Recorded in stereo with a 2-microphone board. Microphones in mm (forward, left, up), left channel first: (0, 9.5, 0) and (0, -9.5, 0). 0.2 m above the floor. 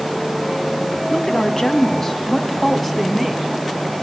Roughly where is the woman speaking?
Left.